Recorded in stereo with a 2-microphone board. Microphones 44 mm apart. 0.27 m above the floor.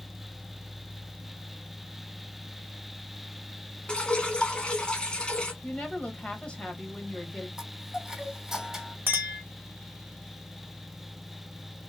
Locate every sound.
3.9 s dripping: 20° left (ahead or behind), 0.9 m
5.6 s a woman speaking: 25° left (ahead or behind), 1.1 m
7.6 s a chime: 5° right (ahead or behind), 2 m
9.1 s a clink: 50° right (ahead or behind), 0.9 m